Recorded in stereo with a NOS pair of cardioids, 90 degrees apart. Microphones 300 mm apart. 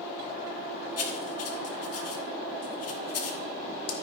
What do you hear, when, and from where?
1.0 s writing: 60° left, 1.9 m